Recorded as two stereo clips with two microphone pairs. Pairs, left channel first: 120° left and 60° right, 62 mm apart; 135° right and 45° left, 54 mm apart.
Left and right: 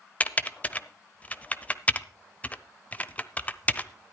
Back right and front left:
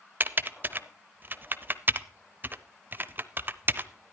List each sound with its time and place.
0.2 s typing on a keyboard: 70° left, 0.7 m